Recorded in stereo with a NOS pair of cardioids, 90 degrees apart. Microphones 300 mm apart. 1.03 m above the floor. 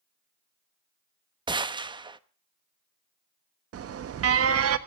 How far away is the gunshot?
About 0.9 m.